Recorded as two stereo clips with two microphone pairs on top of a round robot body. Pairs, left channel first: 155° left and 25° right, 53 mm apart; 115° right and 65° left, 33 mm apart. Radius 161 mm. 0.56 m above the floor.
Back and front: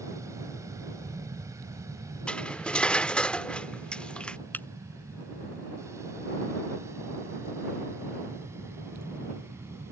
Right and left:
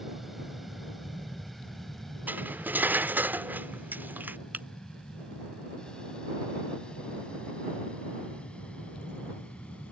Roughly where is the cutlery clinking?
Left.